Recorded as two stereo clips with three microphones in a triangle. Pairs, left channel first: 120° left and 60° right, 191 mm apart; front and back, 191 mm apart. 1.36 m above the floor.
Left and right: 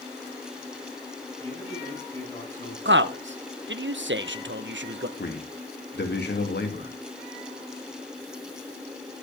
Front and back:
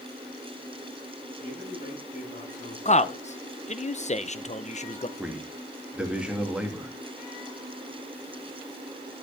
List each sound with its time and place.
1.4 s a man speaking: 50° left, 8.5 m
2.9 s a man speaking: 55° right, 0.9 m
5.2 s a man speaking: 95° left, 2.5 m